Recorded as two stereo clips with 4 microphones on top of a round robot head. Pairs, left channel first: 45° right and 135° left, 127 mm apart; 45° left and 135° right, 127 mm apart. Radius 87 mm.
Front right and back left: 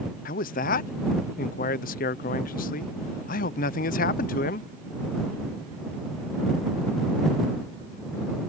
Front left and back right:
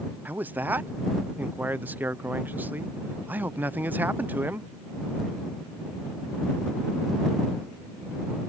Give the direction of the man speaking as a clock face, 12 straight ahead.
2 o'clock.